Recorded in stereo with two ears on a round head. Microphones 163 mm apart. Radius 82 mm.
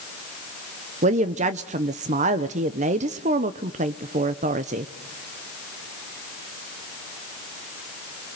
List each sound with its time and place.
1.0 s a woman speaking: 40° right (ahead or behind), 0.7 m